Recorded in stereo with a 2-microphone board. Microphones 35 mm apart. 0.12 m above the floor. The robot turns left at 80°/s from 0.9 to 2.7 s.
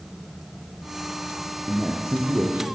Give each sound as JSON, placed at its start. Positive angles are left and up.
{"t": 1.7, "sound": "a man speaking", "azimuth_deg": -10, "distance_m": 4.5}